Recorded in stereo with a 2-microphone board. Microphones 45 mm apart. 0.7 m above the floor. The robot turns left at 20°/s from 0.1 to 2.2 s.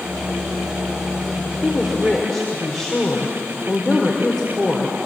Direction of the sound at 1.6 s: 5° right (ahead or behind).